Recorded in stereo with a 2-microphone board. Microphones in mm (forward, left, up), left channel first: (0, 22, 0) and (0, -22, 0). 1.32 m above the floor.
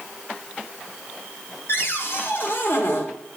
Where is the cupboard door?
60° left (ahead or behind), 1.5 m.